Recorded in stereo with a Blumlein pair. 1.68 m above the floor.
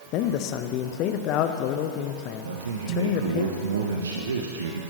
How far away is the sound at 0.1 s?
About 0.7 m.